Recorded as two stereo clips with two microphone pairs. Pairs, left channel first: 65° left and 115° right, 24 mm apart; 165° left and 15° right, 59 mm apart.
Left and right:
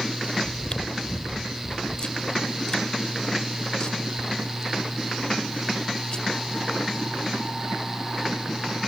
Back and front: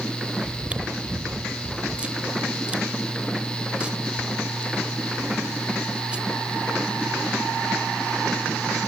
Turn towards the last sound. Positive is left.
turn(degrees=45)